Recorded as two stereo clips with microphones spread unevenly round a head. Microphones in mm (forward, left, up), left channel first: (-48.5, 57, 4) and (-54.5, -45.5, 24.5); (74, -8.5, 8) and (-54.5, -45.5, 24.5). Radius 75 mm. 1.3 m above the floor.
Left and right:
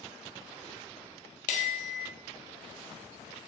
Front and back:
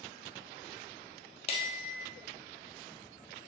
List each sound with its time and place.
1.5 s a bell: 70° left, 1.1 m